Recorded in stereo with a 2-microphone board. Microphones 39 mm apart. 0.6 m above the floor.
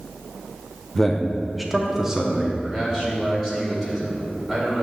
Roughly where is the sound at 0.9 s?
Centre.